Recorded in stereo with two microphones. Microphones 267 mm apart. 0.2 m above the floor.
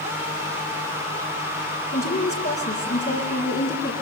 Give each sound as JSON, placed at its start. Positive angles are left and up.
{"t": 1.9, "sound": "a woman speaking", "side_deg": 40, "distance_m": 4.5}